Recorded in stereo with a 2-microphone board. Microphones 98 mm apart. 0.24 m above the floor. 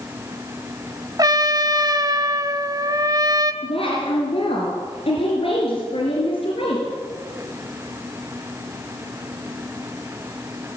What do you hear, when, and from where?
1.2 s a trumpet: 35° right (ahead or behind), 1.1 m
3.6 s a woman speaking: 65° left (ahead or behind), 4.5 m